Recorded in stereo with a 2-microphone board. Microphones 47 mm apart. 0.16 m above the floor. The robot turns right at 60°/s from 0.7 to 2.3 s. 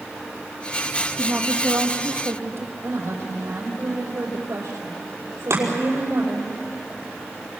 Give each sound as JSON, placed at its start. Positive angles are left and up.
{"t": 1.2, "sound": "a woman speaking", "azimuth_deg": -115, "distance_m": 5.0}
{"t": 2.8, "sound": "a woman speaking", "side_deg": -70, "distance_m": 5.5}
{"t": 5.5, "sound": "chopping", "side_deg": -60, "distance_m": 5.5}